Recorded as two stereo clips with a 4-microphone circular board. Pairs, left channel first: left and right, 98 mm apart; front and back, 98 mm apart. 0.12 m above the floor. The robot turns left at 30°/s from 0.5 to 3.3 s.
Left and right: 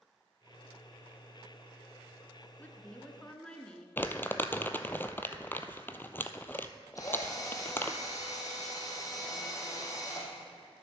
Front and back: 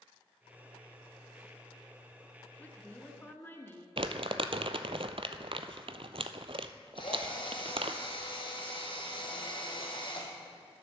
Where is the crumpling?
160° left, 0.6 m.